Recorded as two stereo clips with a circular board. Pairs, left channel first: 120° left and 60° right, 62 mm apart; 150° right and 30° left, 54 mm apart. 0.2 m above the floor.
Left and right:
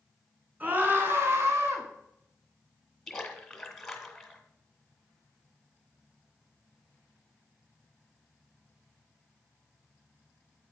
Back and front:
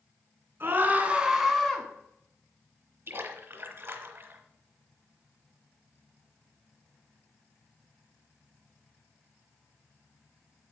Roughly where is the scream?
Ahead.